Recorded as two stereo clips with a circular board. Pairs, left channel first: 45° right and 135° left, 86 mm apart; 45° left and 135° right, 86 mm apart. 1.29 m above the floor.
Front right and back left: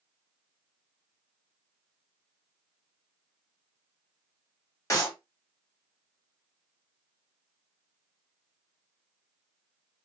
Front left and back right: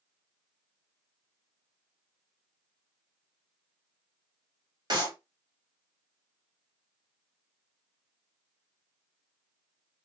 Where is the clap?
100° right, 1.4 m.